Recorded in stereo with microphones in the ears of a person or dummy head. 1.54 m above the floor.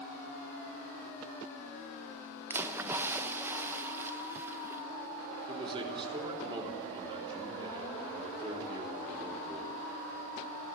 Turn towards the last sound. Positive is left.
turn(degrees=-30)  # may be behind; listen again after turning